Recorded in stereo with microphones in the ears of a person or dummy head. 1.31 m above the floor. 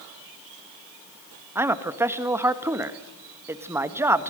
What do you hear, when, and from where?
1.6 s a man speaking: 10° right (ahead or behind), 1.3 m